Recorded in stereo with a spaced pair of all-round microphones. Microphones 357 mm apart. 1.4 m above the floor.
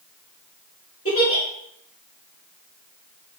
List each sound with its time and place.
1.1 s a giggle: 40° left (ahead or behind), 3 m